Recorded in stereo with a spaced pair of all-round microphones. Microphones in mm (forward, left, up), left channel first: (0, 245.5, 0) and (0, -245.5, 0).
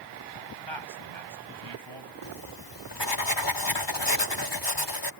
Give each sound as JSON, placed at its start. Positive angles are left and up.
{"t": 0.7, "sound": "a man speaking", "side_deg": -60}
{"t": 2.2, "sound": "writing", "side_deg": 55}